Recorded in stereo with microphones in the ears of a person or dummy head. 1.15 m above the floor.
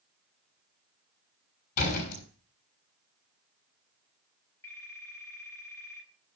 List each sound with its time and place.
1.8 s a door slam: 50° left (ahead or behind), 6 m
4.6 s a phone ringing: 15° left (ahead or behind), 6 m